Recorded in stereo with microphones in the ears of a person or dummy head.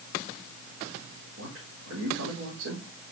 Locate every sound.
1.4 s a man speaking: 75° right (ahead or behind), 3.5 m